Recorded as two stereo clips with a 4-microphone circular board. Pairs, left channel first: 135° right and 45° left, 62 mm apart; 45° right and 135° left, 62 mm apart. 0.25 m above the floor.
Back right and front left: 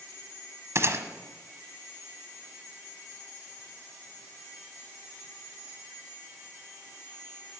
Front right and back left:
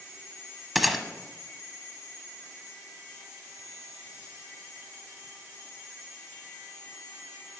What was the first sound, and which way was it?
A gunshot, 45° left.